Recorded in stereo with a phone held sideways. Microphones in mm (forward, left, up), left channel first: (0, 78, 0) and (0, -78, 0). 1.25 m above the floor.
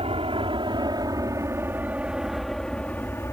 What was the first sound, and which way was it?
An aircraft, 40° right (ahead or behind).